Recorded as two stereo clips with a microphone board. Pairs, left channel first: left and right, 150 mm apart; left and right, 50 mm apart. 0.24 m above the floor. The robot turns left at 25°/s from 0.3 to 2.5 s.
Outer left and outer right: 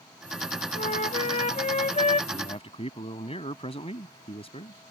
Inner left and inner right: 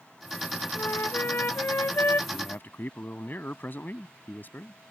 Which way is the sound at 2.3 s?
40° left (ahead or behind).